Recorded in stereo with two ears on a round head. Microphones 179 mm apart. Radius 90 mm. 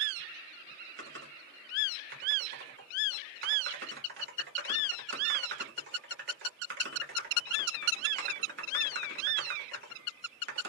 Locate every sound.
1.0 s typing on a keyboard: 55° right (ahead or behind), 2 m